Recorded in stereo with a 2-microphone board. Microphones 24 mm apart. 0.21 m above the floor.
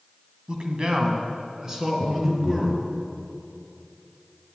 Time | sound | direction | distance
0.5 | a man speaking | 35° right (ahead or behind) | 1.5 m
2.0 | breathing | 70° right (ahead or behind) | 2.5 m